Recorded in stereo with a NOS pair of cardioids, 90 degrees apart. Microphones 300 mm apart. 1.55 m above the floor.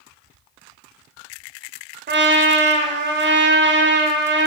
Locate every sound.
2.1 s a trumpet: 40° right, 0.7 m